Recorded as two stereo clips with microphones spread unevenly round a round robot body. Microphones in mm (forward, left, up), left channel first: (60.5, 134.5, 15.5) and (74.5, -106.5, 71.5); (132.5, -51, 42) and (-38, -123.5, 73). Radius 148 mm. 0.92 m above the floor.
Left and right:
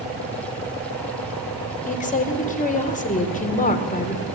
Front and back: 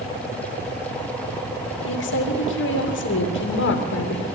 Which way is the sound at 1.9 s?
35° left.